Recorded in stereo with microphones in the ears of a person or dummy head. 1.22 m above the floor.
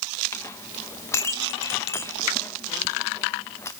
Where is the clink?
15° left (ahead or behind), 0.6 m.